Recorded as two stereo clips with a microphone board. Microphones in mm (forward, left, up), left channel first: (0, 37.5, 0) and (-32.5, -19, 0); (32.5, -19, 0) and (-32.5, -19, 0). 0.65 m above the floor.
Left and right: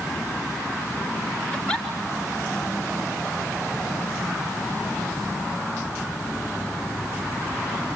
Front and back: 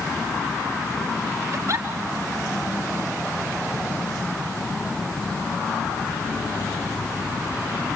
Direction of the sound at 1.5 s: 135° left.